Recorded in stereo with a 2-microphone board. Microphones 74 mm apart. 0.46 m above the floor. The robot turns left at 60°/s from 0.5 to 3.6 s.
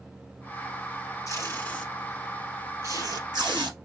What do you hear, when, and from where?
1.3 s tape being pulled: 50° left (ahead or behind), 2.5 m; by 3.8 s 85° right, 2.5 m